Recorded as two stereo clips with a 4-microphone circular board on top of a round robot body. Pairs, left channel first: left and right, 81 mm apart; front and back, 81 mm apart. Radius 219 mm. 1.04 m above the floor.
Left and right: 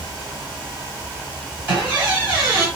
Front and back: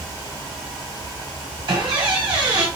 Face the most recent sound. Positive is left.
turn(degrees=-150)